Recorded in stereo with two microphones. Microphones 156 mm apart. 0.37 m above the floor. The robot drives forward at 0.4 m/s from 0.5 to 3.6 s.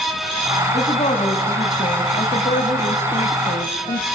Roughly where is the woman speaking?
Left.